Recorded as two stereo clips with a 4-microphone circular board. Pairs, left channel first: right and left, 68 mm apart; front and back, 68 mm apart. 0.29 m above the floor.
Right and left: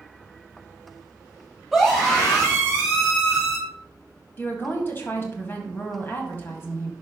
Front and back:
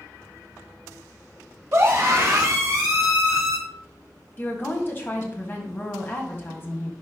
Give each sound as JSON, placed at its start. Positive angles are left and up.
{"t": 1.7, "sound": "a scream", "azimuth_deg": 180, "distance_m": 1.9}
{"t": 4.4, "sound": "a woman speaking", "azimuth_deg": -45, "distance_m": 1.8}